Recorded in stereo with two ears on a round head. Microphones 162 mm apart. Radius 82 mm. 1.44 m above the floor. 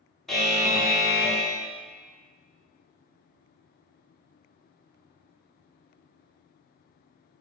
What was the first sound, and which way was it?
A buzzer, centre (ahead or behind).